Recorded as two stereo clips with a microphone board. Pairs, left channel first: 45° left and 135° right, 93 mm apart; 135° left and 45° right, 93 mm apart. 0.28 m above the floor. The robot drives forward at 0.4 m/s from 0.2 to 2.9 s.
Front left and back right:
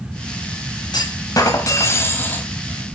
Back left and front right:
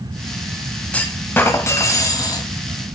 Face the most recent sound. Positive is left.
turn(degrees=125)